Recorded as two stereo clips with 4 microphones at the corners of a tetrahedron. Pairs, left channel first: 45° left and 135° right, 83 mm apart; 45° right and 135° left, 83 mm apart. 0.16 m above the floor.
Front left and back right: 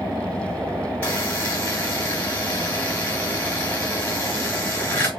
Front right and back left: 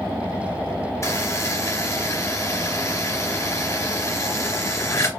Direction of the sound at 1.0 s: 20° right.